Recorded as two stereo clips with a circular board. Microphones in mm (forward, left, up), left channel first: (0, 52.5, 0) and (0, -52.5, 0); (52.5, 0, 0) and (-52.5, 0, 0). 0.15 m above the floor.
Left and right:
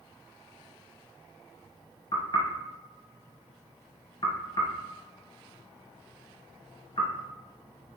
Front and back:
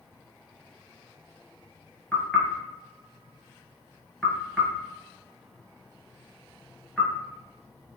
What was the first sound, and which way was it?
Knocking, 75° left.